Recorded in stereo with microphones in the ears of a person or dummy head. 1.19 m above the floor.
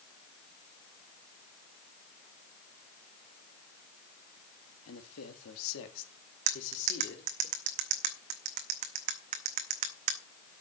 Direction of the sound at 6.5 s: 40° right (ahead or behind).